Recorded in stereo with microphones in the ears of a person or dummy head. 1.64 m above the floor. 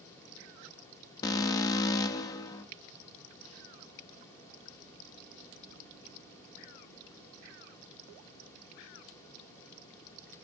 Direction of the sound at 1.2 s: 25° left (ahead or behind).